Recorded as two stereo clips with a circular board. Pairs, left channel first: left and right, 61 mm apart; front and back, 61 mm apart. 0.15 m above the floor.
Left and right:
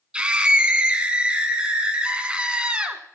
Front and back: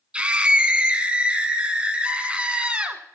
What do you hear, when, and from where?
0.1 s a scream: 140° right, 1.2 m